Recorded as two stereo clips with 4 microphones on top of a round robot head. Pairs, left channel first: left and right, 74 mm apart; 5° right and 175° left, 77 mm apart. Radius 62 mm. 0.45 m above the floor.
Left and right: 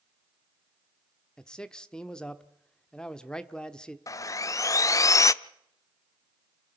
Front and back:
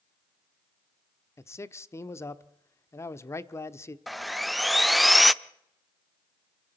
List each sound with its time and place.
1.4 s a man speaking: 15° left, 0.9 m
4.1 s sawing: 85° left, 0.6 m